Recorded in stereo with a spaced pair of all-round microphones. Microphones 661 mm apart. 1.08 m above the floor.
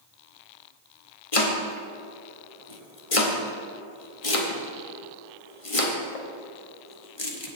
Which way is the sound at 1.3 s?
55° left (ahead or behind).